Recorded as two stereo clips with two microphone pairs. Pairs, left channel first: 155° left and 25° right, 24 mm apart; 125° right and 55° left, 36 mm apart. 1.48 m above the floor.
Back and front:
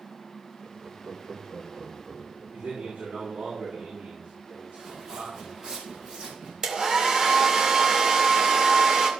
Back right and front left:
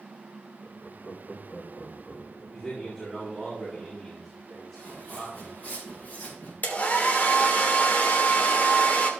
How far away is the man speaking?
About 4.5 m.